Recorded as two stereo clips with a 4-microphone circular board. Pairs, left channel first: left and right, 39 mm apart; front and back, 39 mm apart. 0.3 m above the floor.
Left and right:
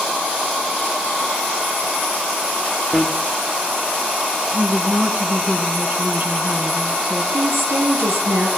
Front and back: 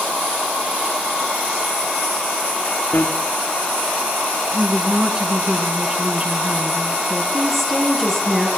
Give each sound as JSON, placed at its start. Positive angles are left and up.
{"t": 2.9, "sound": "a bicycle bell", "azimuth_deg": -25, "distance_m": 3.0}
{"t": 4.5, "sound": "a woman speaking", "azimuth_deg": -125, "distance_m": 3.5}
{"t": 7.3, "sound": "a woman speaking", "azimuth_deg": -90, "distance_m": 7.0}